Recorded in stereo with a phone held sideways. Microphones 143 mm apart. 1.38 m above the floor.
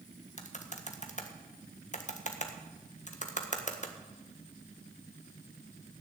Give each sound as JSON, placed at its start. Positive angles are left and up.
{"t": 0.4, "sound": "typing on a keyboard", "side_deg": 60, "distance_m": 1.6}